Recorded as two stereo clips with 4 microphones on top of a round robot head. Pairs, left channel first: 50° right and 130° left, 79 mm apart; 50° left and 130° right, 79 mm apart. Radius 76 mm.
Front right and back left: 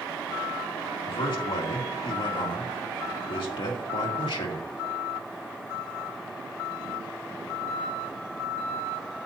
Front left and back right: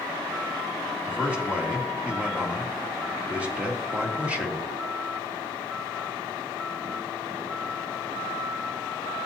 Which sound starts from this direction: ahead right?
A man speaking, at 1.1 s.